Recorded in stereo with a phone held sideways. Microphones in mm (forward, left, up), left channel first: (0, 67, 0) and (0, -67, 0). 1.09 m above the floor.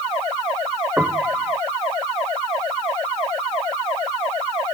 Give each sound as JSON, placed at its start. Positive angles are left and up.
{"t": 1.0, "sound": "a piano", "side_deg": -10}